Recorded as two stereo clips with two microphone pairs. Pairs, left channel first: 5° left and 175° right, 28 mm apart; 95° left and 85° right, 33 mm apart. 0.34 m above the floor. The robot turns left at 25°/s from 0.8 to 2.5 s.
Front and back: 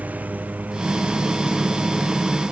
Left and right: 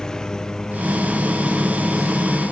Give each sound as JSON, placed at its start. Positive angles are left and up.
{"t": 0.0, "sound": "a lawn mower", "azimuth_deg": 165}